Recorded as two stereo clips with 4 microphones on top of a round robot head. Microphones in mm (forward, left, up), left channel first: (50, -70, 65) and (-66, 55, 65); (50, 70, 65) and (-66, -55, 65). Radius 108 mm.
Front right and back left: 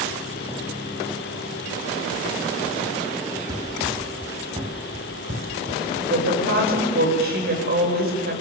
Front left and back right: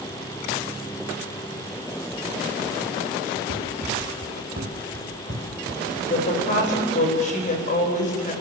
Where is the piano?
I don't hear a piano.